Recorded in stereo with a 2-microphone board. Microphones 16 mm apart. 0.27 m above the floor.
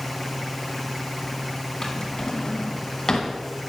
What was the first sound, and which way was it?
A drawer, 40° left (ahead or behind).